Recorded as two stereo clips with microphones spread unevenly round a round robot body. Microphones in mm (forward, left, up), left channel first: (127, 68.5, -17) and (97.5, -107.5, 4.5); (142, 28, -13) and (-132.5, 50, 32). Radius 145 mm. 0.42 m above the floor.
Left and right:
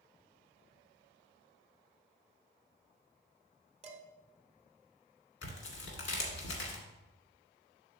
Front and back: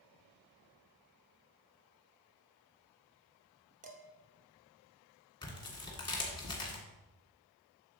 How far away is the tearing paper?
About 1.8 m.